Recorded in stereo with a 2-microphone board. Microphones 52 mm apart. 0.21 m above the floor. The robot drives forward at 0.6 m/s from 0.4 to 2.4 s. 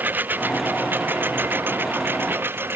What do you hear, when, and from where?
0.0 s a lawn mower: 35° right (ahead or behind); by 2.8 s 45° right (ahead or behind)